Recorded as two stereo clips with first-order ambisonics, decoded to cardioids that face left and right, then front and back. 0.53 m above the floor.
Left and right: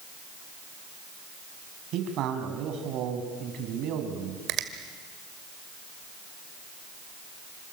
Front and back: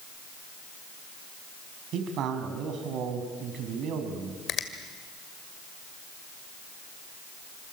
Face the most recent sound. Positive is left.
turn(degrees=-50)